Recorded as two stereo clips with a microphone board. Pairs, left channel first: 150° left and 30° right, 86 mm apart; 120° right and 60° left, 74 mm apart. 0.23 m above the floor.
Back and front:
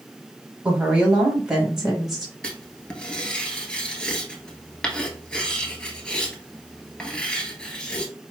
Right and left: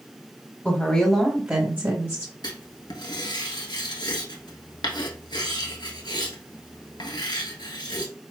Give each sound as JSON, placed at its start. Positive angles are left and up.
{"t": 0.7, "sound": "a woman speaking", "azimuth_deg": -90, "distance_m": 1.1}
{"t": 2.4, "sound": "writing", "azimuth_deg": -130, "distance_m": 1.1}